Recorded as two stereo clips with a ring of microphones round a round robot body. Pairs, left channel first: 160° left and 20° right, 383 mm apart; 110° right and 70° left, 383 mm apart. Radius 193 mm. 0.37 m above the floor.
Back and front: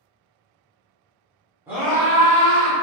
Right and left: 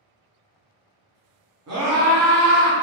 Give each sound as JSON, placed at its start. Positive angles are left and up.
{"t": 1.7, "sound": "a scream", "azimuth_deg": 60, "distance_m": 1.0}